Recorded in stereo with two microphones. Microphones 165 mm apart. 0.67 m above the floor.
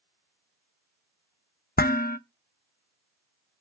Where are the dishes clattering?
65° left (ahead or behind), 0.5 m.